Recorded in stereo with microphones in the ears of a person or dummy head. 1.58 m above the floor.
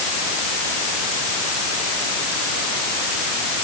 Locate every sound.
Only background noise.